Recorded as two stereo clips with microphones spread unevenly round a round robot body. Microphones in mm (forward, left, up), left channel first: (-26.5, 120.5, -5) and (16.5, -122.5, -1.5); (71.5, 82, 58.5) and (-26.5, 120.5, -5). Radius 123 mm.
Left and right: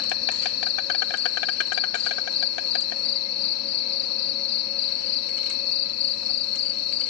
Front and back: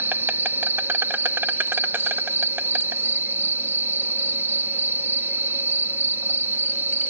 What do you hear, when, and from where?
0.0 s an insect: 115° left